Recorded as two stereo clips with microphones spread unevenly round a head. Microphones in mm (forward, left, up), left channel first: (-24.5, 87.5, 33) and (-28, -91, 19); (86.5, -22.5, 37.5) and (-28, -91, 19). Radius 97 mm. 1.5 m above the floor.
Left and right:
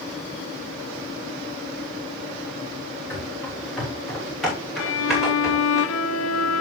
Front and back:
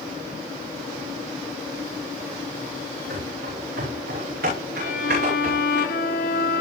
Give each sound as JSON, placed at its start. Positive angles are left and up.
{"t": 3.1, "sound": "running footsteps", "azimuth_deg": 170, "distance_m": 7.5}
{"t": 4.8, "sound": "a violin", "azimuth_deg": 75, "distance_m": 1.3}